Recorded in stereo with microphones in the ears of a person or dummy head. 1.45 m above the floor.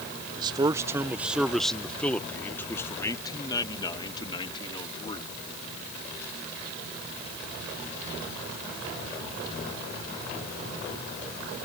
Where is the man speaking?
25° right (ahead or behind); by 5.3 s 30° left (ahead or behind).